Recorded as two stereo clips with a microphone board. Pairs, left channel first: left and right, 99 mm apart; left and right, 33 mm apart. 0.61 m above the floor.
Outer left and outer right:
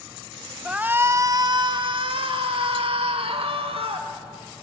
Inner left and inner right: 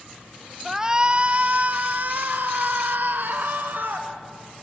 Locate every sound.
0.7 s a shout: 10° right (ahead or behind), 0.8 m; by 4.1 s 75° right (ahead or behind), 2.5 m